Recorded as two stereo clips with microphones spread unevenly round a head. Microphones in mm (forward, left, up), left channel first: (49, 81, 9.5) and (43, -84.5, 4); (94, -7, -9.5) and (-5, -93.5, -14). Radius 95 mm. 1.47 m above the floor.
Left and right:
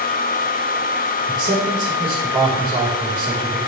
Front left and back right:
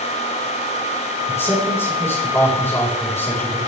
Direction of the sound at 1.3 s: 25° right.